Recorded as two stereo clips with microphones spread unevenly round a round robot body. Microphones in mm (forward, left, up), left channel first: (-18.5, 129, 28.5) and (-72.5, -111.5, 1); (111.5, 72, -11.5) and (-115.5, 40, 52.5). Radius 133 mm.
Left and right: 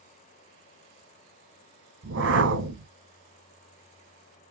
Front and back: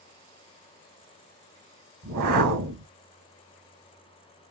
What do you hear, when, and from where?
2.0 s a whoosh: 145° right, 2 m